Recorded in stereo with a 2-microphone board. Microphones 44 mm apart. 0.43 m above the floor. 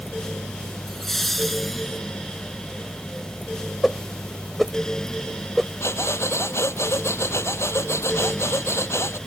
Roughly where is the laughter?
Centre.